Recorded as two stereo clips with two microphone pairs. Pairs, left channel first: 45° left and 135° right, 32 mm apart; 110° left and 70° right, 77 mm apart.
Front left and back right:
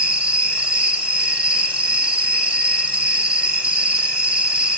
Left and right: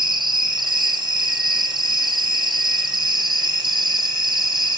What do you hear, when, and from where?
0.0 s an insect: 80° right, 0.9 m